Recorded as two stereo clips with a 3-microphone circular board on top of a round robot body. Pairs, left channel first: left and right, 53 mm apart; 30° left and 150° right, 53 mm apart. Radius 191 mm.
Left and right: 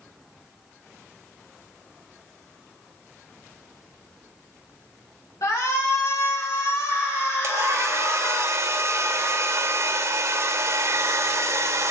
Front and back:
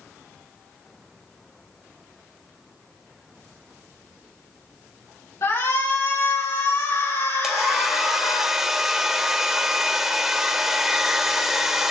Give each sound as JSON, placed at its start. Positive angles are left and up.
{"t": 5.4, "sound": "a shout", "azimuth_deg": 65, "distance_m": 7.5}
{"t": 7.4, "sound": "a hair dryer", "azimuth_deg": -70, "distance_m": 2.5}